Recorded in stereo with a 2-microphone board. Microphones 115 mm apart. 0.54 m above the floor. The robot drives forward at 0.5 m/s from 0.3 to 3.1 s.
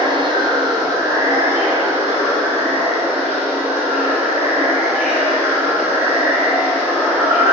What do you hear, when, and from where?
0.0 s running water: 40° right (ahead or behind), 0.7 m; by 7.5 s 15° right (ahead or behind), 2.0 m